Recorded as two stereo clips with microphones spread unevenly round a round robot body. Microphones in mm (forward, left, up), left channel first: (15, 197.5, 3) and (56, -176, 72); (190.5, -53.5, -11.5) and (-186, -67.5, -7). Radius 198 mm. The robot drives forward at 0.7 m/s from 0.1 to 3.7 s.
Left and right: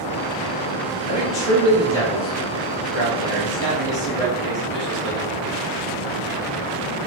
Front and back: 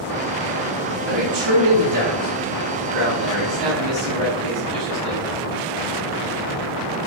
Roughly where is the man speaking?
Behind.